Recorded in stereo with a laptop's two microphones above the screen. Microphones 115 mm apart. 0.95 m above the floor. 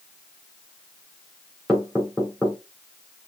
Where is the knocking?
5° right (ahead or behind), 3 m.